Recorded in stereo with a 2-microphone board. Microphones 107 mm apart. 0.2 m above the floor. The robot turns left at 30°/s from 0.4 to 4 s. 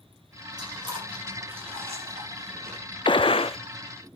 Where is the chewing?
40° right (ahead or behind), 5 m; by 2.8 s 70° right (ahead or behind), 5 m.